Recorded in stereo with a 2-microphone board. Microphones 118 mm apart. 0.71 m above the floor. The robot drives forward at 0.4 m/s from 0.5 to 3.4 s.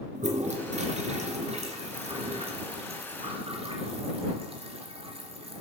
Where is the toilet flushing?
75° right (ahead or behind), 2.5 m; by 5.6 s 55° right (ahead or behind), 3 m.